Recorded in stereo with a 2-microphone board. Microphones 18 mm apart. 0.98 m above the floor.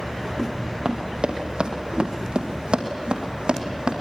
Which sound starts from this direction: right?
Running footsteps, at 0.8 s.